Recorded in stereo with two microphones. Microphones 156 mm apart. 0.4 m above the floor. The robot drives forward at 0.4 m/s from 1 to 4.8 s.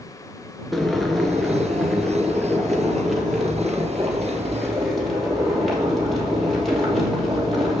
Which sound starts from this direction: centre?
Boiling, at 0.7 s.